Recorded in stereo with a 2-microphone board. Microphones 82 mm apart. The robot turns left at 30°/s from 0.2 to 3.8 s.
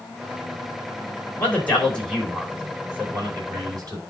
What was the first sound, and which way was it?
A man speaking, 25° left (ahead or behind).